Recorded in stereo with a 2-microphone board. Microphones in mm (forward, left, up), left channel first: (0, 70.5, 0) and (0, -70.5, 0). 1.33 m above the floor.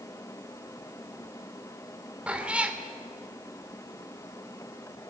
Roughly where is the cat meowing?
Centre.